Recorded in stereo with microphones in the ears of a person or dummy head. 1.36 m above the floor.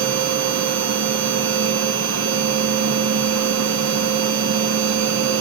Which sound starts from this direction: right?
A machine running, at 0.0 s.